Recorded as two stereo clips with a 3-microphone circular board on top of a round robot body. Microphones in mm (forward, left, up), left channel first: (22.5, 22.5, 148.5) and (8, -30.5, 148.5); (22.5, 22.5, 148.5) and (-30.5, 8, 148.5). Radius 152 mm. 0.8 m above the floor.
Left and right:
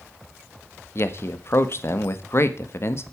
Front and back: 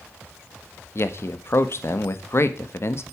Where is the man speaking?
45° left, 1.9 m.